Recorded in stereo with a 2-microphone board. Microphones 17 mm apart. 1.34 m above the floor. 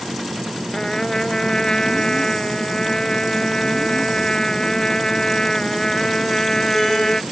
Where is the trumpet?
45° left (ahead or behind).